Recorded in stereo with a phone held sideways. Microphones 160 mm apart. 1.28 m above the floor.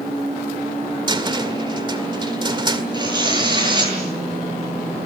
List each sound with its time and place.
1.1 s a cupboard door: 30° right (ahead or behind), 2.0 m
2.9 s tearing paper: 25° right (ahead or behind), 9.5 m